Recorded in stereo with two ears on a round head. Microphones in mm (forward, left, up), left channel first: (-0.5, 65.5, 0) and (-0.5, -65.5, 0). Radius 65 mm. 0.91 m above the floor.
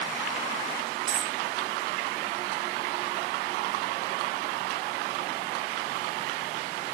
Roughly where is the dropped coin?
Right.